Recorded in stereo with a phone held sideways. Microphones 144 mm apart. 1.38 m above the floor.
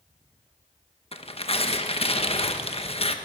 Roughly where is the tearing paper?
Left.